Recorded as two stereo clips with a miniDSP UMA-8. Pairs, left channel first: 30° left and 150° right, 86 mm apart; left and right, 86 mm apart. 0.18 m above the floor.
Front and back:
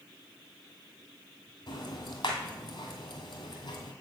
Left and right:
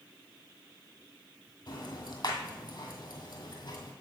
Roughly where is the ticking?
Ahead left.